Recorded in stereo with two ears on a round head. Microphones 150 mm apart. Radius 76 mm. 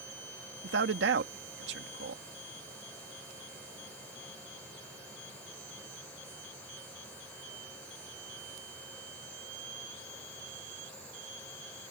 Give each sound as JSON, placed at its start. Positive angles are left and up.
{"t": 0.6, "sound": "a man speaking", "side_deg": -70}